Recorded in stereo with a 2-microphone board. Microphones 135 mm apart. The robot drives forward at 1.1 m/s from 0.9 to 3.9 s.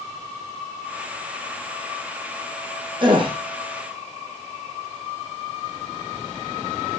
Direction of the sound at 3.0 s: 35° right (ahead or behind).